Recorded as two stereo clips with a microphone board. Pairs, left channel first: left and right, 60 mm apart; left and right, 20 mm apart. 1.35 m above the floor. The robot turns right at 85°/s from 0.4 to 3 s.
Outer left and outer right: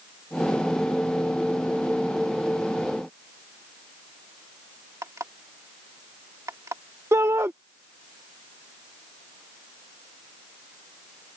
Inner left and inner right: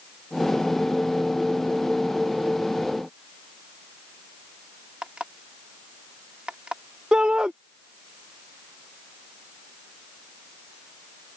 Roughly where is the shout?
Right.